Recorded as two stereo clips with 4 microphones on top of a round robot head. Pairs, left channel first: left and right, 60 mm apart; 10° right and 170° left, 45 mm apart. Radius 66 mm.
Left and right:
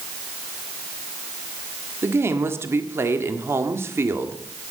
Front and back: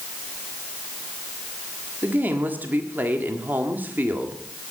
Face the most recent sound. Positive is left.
turn(degrees=-135)